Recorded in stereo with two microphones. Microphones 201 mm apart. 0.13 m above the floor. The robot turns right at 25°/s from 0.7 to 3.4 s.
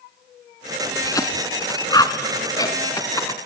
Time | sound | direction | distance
1.0 | a cough | 20° left (ahead or behind) | 1.1 m